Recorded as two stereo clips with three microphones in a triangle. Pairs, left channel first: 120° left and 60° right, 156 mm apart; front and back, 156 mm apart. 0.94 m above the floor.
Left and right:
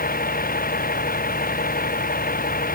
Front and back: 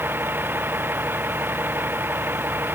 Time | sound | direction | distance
0.0 | a vehicle | 105° left | ?